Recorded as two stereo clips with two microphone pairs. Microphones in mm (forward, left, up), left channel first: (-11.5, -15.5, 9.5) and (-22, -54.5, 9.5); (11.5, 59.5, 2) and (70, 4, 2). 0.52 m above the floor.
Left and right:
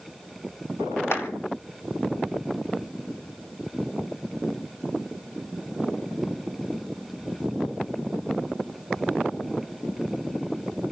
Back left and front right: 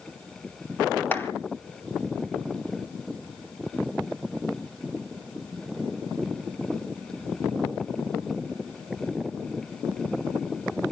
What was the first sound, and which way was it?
A clap, 70° left.